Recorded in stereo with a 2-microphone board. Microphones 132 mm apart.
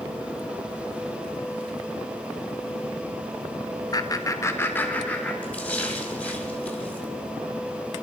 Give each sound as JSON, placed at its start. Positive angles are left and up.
{"t": 3.9, "sound": "laughter", "side_deg": 30, "distance_m": 0.9}
{"t": 5.4, "sound": "a splash", "side_deg": 10, "distance_m": 2.0}